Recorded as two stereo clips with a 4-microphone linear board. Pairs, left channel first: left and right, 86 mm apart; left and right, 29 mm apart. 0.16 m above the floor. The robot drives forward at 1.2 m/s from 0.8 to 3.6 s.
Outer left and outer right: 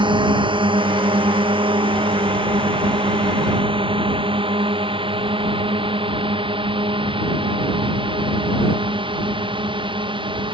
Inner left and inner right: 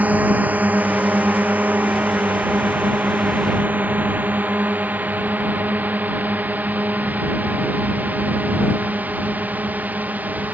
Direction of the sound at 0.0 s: 70° right (ahead or behind).